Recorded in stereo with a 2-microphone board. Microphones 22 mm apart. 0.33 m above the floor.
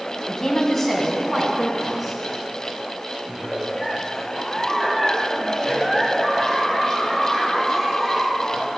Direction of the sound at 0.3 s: 30° left (ahead or behind).